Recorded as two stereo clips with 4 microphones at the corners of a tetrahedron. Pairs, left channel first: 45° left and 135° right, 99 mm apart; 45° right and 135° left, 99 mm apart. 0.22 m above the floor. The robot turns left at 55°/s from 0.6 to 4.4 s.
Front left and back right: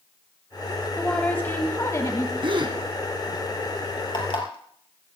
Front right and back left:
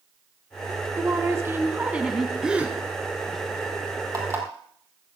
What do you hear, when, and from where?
1.0 s a woman speaking: 125° left, 1.4 m; by 2.3 s 50° left, 1.4 m
2.4 s a gasp: 140° right, 2.5 m; by 2.8 s 160° right, 2.5 m
4.1 s an alarm clock: 85° left, 4 m; by 5.2 s 70° left, 4 m